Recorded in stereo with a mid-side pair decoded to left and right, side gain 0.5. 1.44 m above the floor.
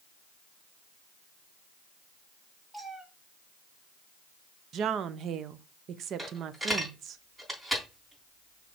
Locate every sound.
2.7 s a cat meowing: 20° right, 1.9 m
4.7 s a woman speaking: 60° right, 0.7 m
6.2 s a dropped coin: 20° right, 3.5 m